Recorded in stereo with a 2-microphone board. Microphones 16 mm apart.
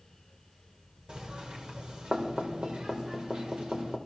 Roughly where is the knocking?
Right.